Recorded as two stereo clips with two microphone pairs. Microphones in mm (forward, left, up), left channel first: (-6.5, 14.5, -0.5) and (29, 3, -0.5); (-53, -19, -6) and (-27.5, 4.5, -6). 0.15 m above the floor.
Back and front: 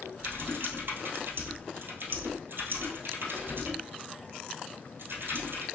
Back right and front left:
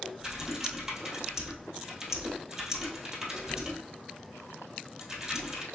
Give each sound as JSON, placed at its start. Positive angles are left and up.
{"t": 0.2, "sound": "typing on a keyboard", "azimuth_deg": -30, "distance_m": 1.6}